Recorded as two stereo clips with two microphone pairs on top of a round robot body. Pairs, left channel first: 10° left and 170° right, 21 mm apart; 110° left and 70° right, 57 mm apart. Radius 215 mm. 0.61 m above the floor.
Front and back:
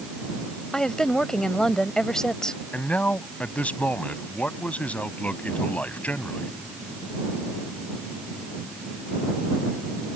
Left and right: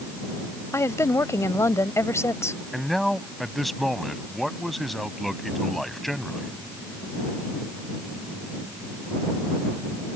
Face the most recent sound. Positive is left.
turn(degrees=20)